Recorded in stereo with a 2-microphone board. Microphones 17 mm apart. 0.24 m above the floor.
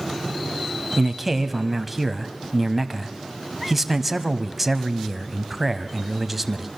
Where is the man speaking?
Centre (ahead or behind), 1.2 m.